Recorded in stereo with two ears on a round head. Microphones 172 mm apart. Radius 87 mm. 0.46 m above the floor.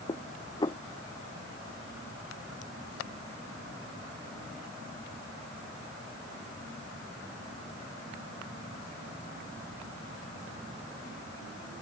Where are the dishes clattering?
20° left (ahead or behind).